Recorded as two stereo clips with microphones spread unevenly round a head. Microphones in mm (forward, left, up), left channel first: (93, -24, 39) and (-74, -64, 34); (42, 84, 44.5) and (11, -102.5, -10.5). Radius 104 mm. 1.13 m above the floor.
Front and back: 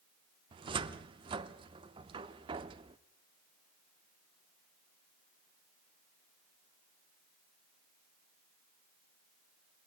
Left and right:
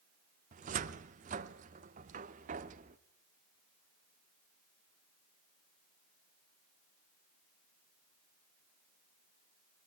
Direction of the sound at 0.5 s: 140° right.